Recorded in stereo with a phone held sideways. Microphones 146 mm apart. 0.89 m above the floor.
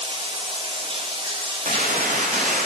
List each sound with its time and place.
0.0 s running water: 40° right (ahead or behind), 0.8 m
1.6 s a gunshot: 65° right (ahead or behind), 0.7 m